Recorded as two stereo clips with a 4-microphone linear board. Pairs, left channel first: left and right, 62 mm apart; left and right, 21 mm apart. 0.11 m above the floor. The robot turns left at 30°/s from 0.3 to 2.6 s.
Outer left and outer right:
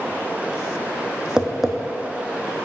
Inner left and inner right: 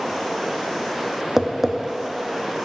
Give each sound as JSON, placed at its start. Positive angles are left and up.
{"t": 1.4, "sound": "tapping", "side_deg": -15, "distance_m": 0.7}